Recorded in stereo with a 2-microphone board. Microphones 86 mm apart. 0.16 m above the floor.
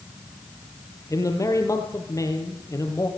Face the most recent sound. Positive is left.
turn(degrees=35)  # may be behind; listen again after turning